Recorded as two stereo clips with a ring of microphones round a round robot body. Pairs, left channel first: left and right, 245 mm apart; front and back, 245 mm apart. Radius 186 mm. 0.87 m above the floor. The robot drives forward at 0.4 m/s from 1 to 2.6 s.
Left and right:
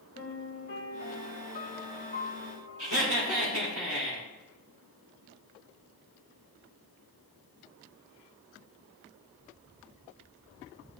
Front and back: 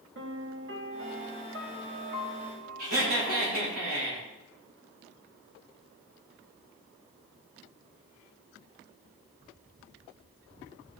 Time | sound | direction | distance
0.1 | a piano | 145° left | 2 m
2.8 | laughter | 135° right | 4 m